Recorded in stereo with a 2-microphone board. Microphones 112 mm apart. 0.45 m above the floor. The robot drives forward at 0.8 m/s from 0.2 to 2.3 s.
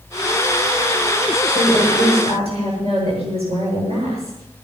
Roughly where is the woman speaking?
Right.